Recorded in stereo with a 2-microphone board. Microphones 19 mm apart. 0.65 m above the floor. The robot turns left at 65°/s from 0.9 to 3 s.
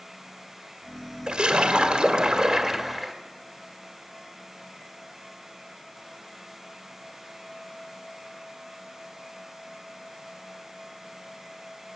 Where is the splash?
55° right, 1.8 m; by 3.1 s 170° right, 1.8 m.